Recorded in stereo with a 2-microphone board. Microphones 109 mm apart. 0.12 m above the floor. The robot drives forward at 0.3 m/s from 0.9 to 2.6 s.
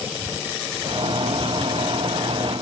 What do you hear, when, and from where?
Only background noise.